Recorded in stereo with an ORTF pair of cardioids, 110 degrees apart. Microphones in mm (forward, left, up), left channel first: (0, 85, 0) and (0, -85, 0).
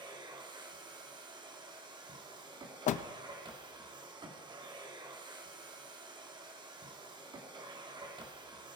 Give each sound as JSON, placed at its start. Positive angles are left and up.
{"t": 0.0, "sound": "a machine running", "azimuth_deg": -30, "distance_m": 1.7}
{"t": 2.9, "sound": "a door slam", "azimuth_deg": 50, "distance_m": 0.7}